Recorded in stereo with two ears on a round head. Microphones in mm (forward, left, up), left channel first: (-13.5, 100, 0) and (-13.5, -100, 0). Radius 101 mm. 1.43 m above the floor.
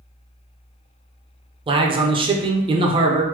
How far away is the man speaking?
About 0.5 m.